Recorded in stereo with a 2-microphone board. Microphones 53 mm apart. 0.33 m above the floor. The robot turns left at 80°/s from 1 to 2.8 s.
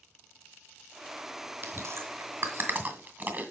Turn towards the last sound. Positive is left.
turn(degrees=-30)  # may be behind; listen again after turning